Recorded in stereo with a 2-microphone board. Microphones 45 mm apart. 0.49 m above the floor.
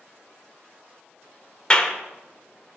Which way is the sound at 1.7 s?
20° left (ahead or behind).